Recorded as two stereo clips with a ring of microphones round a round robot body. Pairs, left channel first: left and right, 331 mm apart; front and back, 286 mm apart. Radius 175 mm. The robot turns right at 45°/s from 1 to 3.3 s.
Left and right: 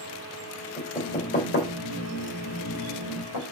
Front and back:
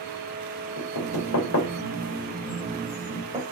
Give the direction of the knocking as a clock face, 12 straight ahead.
12 o'clock.